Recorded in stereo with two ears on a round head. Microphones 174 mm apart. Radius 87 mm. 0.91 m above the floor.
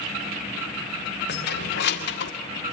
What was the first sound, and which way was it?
Keys jangling, 55° left (ahead or behind).